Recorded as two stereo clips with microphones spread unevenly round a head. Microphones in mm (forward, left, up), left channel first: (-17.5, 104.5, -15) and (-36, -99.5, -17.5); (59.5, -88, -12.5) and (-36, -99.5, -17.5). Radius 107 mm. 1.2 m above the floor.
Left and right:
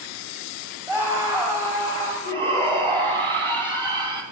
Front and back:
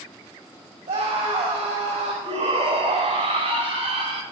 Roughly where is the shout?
Behind.